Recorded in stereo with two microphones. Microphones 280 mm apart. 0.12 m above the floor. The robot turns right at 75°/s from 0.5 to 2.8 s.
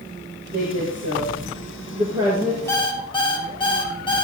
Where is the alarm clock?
10° left (ahead or behind), 1.6 m; by 4.2 s 15° left (ahead or behind), 1.6 m.